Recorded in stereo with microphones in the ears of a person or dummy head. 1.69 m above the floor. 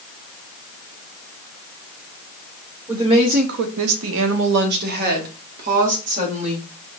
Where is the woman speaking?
20° right (ahead or behind), 0.9 m; by 6.7 s 40° right (ahead or behind), 3 m.